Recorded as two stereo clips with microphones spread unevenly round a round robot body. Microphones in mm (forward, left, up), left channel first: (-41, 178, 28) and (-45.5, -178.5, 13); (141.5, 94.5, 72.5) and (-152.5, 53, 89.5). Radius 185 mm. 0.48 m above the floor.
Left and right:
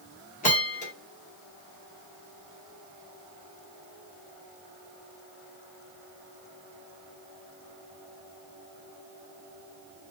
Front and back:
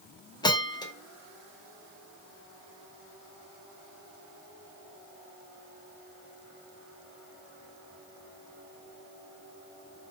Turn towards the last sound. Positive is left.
turn(degrees=50)